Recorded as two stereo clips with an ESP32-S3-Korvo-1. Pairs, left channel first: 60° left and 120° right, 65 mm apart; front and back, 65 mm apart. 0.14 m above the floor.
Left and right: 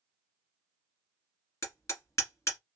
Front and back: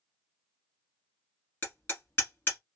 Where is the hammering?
45° left, 1.9 m.